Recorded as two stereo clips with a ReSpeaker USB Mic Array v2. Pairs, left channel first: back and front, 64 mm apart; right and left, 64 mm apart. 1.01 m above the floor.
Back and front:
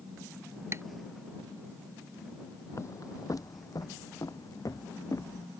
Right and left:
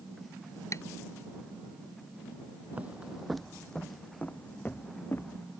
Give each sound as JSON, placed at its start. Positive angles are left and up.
{"t": 0.7, "sound": "tapping", "azimuth_deg": -50}
{"t": 2.7, "sound": "footsteps", "azimuth_deg": 150}